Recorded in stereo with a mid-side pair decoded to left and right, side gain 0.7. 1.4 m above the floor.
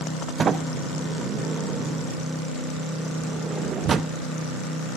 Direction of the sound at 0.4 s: 30° right.